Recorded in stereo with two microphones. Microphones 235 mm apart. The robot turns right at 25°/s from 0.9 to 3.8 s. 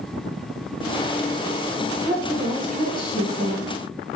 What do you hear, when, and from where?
2.1 s a woman speaking: 20° left (ahead or behind), 1.2 m; by 3.7 s 15° left (ahead or behind), 1.2 m